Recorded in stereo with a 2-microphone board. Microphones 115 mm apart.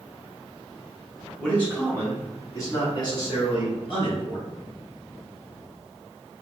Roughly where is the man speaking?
Centre.